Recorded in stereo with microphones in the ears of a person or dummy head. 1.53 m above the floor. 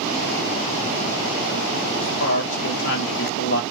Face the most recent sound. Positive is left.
turn(degrees=65)  # may be behind; listen again after turning